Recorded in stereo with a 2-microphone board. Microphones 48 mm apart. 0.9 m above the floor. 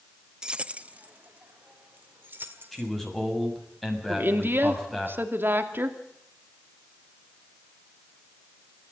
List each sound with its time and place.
0.4 s keys jangling: 15° right (ahead or behind), 0.6 m; by 2.9 s 45° right (ahead or behind), 2.5 m
2.7 s a man speaking: 5° left (ahead or behind), 6.5 m
4.1 s a woman speaking: 50° right (ahead or behind), 2.5 m